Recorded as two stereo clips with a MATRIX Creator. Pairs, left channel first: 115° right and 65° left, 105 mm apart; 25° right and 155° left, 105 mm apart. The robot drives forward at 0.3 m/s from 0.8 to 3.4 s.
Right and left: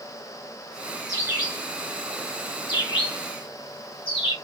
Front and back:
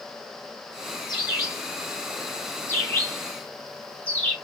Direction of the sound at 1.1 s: 60° right.